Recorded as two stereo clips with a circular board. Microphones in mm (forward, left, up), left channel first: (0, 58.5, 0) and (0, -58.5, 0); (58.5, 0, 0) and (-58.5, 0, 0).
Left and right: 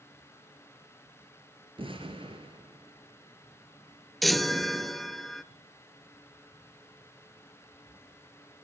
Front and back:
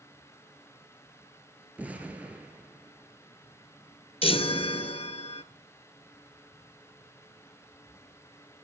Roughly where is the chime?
Ahead.